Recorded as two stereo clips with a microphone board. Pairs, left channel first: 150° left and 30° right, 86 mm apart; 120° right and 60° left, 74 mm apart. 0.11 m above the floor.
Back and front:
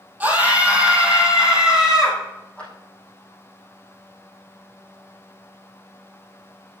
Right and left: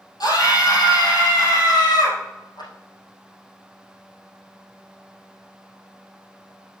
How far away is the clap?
About 4.5 m.